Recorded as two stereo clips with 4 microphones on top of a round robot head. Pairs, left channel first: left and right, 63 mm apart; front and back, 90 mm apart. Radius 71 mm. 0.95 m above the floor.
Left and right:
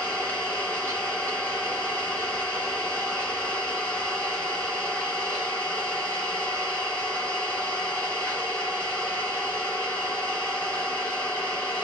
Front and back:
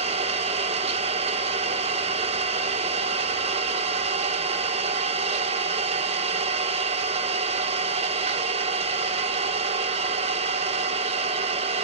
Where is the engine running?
165° left, 1.5 m.